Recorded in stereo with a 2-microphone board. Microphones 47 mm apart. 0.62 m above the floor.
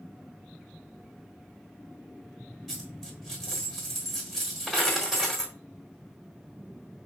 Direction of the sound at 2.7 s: 5° left (ahead or behind).